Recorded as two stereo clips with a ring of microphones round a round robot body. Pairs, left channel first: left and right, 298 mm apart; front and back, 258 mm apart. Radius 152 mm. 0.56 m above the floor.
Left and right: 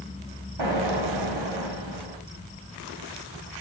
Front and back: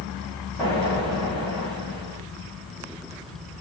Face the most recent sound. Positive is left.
turn(degrees=-80)